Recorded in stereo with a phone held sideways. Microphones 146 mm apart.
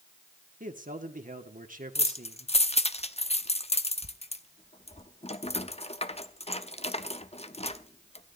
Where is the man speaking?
60° right (ahead or behind), 1.7 m.